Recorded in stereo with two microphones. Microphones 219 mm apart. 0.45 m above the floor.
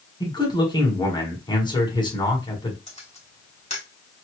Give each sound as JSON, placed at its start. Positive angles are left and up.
{"t": 0.2, "sound": "a man speaking", "side_deg": 20, "distance_m": 1.5}
{"t": 2.9, "sound": "a camera shutter", "side_deg": 30, "distance_m": 2.0}